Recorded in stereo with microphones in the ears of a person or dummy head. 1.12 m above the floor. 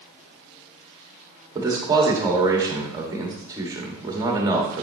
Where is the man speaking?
20° right (ahead or behind), 1.6 m.